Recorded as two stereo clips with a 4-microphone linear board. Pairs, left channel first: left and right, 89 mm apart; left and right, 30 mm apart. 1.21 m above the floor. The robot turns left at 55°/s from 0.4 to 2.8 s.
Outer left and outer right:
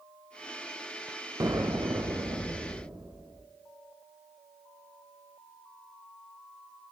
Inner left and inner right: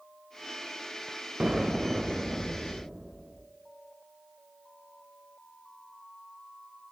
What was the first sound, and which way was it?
An explosion, 60° right.